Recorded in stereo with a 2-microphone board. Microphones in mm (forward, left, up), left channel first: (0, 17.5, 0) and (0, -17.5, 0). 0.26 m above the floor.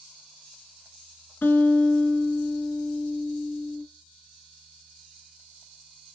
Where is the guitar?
70° left (ahead or behind), 0.8 m.